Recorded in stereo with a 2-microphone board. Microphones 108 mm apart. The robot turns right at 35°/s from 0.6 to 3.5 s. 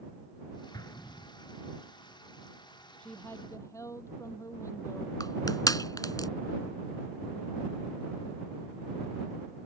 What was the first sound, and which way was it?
An explosion, 40° left (ahead or behind).